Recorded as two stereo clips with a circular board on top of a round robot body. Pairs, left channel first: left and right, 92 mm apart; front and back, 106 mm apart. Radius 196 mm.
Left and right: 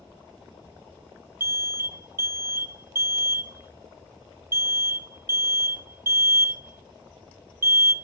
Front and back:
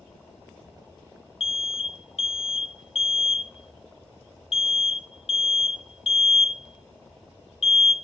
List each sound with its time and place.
1.4 s an alarm: 25° right, 1.1 m